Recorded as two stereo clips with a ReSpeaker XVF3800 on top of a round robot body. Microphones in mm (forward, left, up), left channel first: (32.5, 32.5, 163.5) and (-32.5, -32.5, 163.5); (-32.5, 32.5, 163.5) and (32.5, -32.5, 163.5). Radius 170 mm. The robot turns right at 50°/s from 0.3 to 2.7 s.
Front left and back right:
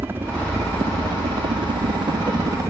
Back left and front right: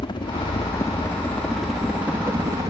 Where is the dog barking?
No dog barking in this recording.